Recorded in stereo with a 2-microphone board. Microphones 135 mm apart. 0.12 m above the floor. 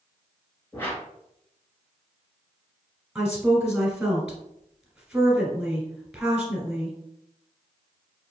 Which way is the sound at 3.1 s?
5° right (ahead or behind).